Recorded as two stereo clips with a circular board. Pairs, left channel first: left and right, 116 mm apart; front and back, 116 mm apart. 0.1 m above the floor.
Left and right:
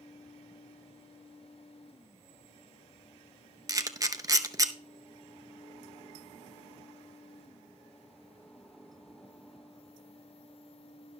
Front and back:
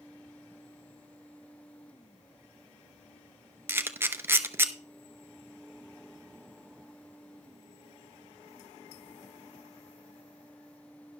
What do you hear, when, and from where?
3.7 s a camera shutter: 125° right, 0.9 m